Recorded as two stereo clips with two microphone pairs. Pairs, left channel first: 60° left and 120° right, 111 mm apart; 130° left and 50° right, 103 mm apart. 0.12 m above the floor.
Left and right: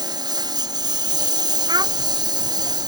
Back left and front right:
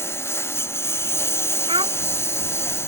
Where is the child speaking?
75° right.